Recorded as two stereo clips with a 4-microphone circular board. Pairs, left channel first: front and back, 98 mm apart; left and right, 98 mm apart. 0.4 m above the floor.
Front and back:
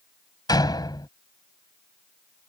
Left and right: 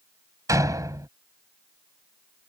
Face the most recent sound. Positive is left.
turn(degrees=-40)